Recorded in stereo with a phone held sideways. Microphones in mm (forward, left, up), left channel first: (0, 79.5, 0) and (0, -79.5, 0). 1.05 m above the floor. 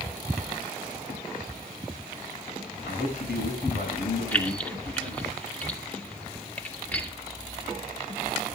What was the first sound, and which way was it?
A man speaking, 90° left.